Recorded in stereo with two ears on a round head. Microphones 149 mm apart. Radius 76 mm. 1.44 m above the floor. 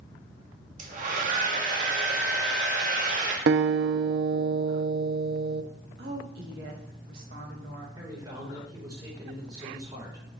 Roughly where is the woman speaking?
Right.